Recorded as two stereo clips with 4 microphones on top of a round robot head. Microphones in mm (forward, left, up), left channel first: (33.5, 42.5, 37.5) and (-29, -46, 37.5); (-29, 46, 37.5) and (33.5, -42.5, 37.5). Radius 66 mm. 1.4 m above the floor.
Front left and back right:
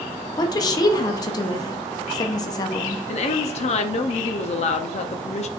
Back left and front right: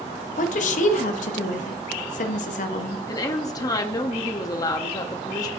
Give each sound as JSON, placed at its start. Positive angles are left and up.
{"t": 0.4, "sound": "a woman speaking", "azimuth_deg": 110, "distance_m": 0.7}
{"t": 3.1, "sound": "a woman speaking", "azimuth_deg": 70, "distance_m": 0.6}